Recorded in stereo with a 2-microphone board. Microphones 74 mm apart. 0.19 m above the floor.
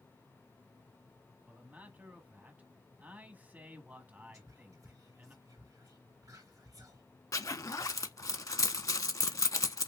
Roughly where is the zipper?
Left.